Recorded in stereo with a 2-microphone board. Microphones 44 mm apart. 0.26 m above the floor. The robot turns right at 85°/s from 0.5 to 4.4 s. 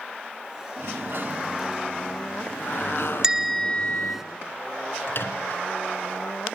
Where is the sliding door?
100° right, 1.6 m; by 4.2 s 165° right, 1.6 m.